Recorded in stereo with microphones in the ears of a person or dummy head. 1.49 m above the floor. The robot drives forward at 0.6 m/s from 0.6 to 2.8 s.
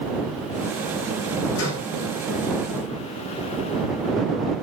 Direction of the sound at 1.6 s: 80° left.